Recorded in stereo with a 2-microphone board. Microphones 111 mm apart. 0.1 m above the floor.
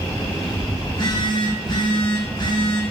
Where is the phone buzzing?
40° left (ahead or behind), 4 m.